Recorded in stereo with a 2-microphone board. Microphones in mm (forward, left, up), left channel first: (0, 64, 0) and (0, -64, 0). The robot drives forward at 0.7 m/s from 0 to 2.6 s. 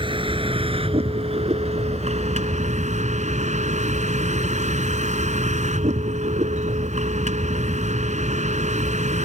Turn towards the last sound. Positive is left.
turn(degrees=-70)  # may be behind; listen again after turning